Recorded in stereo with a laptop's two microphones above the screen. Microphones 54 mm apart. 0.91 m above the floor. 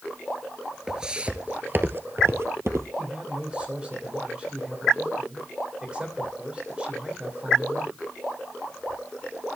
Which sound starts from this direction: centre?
Footsteps, at 0.9 s.